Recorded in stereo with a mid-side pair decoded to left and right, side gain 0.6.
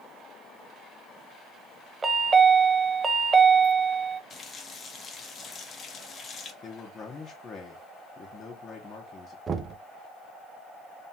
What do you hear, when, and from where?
2.0 s a chime: 25° right, 0.7 m
4.3 s a running tap: 40° left, 1.0 m
6.6 s a man speaking: 35° left, 1.1 m
9.5 s knocking: 35° right, 0.7 m